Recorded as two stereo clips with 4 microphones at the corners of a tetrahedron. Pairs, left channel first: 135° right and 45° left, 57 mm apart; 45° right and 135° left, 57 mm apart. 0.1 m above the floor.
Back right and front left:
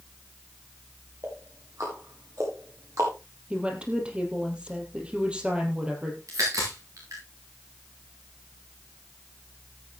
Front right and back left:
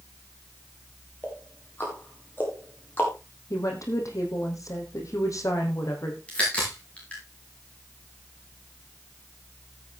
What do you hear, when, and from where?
1.2 s ticking: 15° left, 6.5 m
3.5 s a woman speaking: 25° right, 3 m
6.3 s a crack: 25° left, 8.5 m